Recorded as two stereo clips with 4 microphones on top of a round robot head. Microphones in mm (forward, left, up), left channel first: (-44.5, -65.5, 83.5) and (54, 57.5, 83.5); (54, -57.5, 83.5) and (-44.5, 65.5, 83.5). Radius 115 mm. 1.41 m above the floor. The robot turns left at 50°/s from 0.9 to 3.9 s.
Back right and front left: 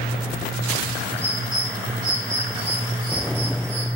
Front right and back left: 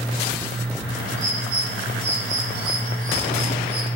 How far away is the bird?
About 3 m.